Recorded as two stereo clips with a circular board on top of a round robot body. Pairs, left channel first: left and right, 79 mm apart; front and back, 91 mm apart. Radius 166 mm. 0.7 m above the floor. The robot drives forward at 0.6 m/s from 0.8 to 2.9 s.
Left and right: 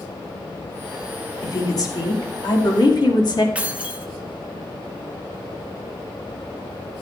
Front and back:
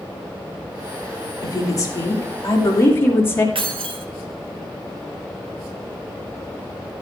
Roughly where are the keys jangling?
Behind.